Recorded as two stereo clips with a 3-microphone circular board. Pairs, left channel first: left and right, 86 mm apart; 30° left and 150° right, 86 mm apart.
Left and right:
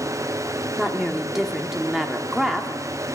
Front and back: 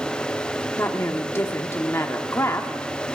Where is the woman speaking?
5° right, 1.2 m.